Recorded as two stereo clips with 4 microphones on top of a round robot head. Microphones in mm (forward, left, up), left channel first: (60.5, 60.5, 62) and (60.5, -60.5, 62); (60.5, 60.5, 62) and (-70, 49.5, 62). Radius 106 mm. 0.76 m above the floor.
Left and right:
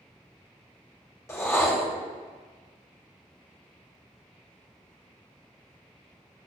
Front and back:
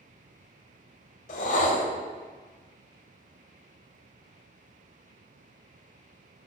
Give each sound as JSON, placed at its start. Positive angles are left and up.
{"t": 1.3, "sound": "a whoosh", "azimuth_deg": 25, "distance_m": 0.8}